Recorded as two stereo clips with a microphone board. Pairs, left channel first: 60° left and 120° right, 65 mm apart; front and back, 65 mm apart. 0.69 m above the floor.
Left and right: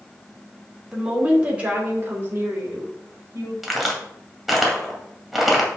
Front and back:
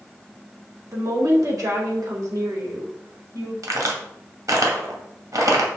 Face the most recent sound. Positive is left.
turn(degrees=155)